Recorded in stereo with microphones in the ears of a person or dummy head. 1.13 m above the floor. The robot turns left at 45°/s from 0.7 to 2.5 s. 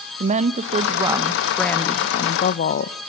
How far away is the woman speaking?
About 0.7 m.